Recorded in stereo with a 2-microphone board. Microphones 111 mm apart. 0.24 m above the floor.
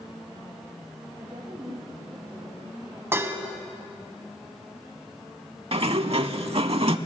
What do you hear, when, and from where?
1.2 s a woman speaking: 25° right (ahead or behind), 5 m
3.1 s dishes clattering: 20° right (ahead or behind), 1.1 m
5.7 s a sliding door: 60° right (ahead or behind), 0.6 m